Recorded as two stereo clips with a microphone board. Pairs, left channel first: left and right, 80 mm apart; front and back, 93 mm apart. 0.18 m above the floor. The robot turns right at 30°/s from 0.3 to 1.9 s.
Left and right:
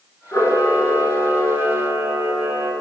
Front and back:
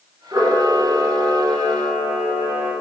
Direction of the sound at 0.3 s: 135° left.